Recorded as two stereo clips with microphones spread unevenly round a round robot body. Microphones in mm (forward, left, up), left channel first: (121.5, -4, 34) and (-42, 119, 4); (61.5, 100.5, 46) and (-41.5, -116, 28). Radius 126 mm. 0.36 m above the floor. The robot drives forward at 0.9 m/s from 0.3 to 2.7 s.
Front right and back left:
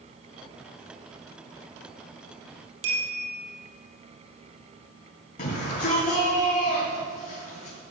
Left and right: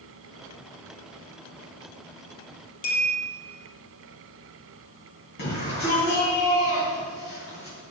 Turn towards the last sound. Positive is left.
turn(degrees=15)